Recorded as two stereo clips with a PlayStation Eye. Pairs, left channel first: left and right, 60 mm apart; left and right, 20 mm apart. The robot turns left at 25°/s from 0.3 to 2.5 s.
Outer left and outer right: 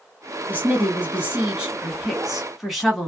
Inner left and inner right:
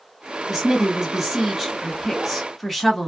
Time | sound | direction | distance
0.5 | a woman speaking | 125° right | 1.3 m